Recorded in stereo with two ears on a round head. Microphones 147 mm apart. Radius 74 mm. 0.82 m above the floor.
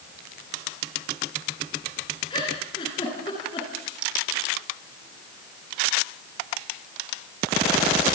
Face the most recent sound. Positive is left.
turn(degrees=30)  # may be behind; listen again after turning